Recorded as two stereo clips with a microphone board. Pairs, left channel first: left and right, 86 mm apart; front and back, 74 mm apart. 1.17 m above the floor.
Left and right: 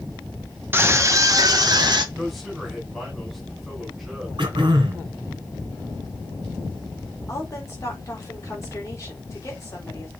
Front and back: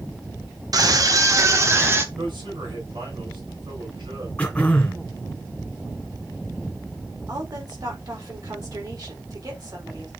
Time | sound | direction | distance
0.7 | a scream | 155° right | 1.3 m
2.1 | a man speaking | straight behind | 4.5 m
4.4 | throat clearing | 75° right | 2.5 m
7.3 | a woman speaking | 145° left | 4 m